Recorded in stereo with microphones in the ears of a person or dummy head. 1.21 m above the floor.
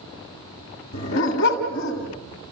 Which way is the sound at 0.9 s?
55° left (ahead or behind).